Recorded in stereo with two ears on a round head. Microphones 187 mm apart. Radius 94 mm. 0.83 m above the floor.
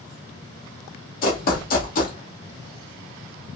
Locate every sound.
1.2 s running footsteps: 45° left (ahead or behind), 1.2 m